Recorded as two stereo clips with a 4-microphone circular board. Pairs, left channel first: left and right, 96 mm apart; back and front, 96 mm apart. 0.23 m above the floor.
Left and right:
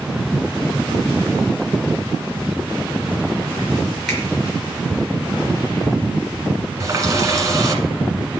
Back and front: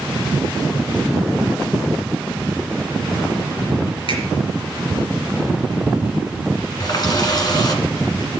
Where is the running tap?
140° right, 1.5 m.